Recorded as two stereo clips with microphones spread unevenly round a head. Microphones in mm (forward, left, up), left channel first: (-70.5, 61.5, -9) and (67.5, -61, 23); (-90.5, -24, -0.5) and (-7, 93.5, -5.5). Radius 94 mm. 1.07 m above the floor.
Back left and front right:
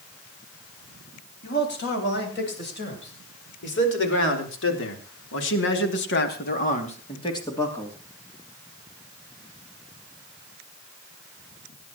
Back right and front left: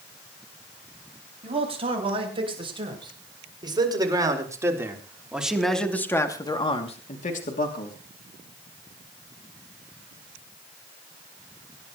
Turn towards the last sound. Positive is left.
turn(degrees=-140)